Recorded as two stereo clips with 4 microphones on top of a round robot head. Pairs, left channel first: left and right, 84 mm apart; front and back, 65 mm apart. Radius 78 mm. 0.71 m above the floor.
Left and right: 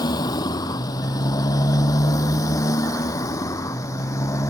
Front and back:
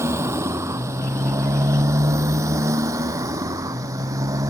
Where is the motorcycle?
130° left; by 4.5 s 145° left.